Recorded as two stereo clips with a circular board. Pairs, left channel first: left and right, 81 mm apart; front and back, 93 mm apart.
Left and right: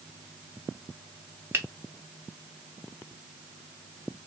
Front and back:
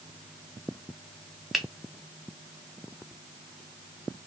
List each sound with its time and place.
1.5 s a finger snap: 95° right, 0.7 m